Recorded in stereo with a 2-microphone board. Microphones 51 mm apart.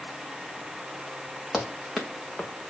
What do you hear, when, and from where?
1.5 s running footsteps: 10° right (ahead or behind), 3 m; by 2.7 s 15° left (ahead or behind), 1.8 m